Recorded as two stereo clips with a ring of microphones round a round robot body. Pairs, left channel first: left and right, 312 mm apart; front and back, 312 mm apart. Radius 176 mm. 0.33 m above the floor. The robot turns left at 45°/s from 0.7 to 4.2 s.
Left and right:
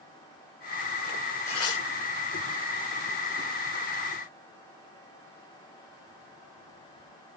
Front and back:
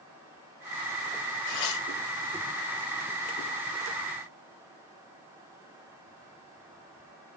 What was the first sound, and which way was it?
Tearing paper, 50° left.